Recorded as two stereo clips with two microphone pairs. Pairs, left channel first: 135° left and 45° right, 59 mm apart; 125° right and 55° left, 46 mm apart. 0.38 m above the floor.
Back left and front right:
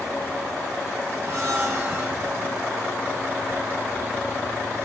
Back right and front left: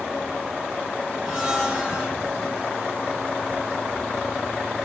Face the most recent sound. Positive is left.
turn(degrees=-30)